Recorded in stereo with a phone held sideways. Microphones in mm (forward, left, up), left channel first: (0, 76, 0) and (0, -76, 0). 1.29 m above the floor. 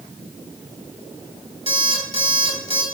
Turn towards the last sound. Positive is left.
turn(degrees=-45)  # may be behind; listen again after turning